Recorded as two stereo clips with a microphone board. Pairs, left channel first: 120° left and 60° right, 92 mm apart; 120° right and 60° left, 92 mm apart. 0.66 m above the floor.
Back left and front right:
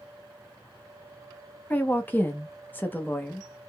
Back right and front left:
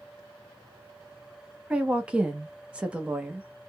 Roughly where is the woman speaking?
Left.